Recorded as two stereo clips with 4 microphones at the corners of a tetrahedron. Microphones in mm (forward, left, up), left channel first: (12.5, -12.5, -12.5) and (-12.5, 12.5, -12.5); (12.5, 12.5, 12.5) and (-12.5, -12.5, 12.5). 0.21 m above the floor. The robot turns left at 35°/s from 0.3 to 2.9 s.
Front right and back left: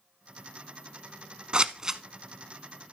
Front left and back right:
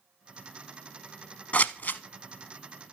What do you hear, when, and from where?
1.5 s scissors: 80° left, 0.6 m; by 2.0 s 65° left, 0.6 m